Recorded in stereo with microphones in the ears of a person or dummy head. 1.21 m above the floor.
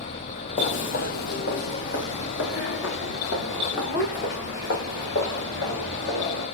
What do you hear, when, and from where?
0.6 s footsteps: 35° left (ahead or behind), 1.7 m; by 6.5 s 50° left (ahead or behind), 7 m